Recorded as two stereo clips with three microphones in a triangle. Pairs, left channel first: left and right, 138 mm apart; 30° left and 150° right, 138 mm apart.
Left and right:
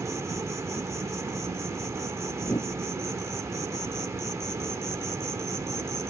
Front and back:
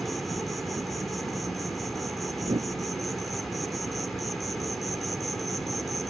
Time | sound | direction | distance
0.0 | an insect | 60° right | ?
2.4 | a whoosh | 155° left | ?